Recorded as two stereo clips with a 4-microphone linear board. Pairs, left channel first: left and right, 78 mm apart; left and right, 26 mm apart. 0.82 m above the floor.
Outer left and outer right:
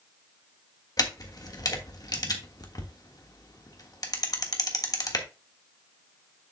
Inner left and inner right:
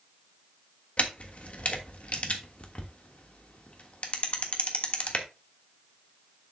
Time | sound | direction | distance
1.0 | a camera shutter | 50° left (ahead or behind) | 1.3 m